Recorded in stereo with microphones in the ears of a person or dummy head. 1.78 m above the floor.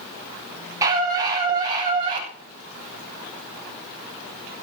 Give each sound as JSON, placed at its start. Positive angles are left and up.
{"t": 0.8, "sound": "a scream", "side_deg": -15, "distance_m": 7.5}